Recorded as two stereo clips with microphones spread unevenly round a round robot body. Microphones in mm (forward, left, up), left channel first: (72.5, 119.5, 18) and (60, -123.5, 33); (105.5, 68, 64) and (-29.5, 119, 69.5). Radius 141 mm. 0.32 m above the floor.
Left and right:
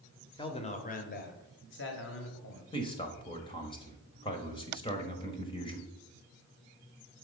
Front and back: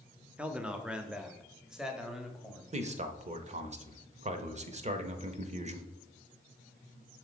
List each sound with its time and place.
0.4 s a man speaking: 85° left, 1.0 m; by 2.6 s 70° left, 2.0 m
2.7 s a man speaking: 150° left, 1.1 m